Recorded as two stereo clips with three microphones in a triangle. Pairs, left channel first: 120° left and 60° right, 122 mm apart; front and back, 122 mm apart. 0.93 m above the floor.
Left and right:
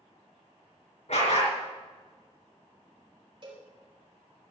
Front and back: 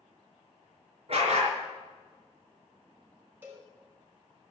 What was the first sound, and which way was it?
A dog barking, 145° left.